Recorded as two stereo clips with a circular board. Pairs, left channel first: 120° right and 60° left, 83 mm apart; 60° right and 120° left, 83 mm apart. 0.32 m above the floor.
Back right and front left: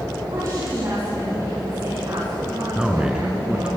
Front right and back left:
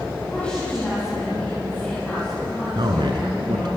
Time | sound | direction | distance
0.3 | a woman speaking | 15° left | 9 m
2.8 | a man speaking | 140° left | 3 m